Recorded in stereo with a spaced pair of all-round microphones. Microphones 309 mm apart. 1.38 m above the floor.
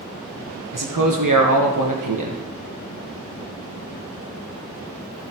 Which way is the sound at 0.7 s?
85° right.